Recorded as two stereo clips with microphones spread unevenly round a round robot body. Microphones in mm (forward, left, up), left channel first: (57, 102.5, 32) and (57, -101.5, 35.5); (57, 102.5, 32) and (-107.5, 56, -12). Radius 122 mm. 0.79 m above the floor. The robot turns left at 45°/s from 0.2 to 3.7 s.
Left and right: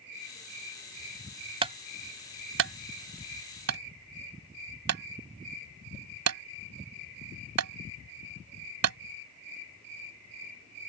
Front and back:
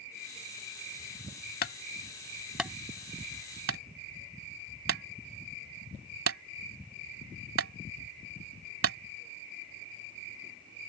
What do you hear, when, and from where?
1.6 s a clunk: 25° right; by 9.0 s 120° right